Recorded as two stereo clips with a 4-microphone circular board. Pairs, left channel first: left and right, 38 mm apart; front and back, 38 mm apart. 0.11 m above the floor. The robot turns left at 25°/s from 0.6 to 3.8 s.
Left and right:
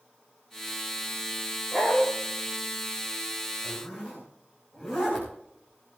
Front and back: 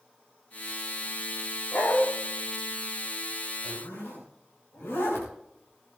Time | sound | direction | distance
1.7 | a dog barking | 25° left | 5 m
3.6 | a zipper | 10° left | 7 m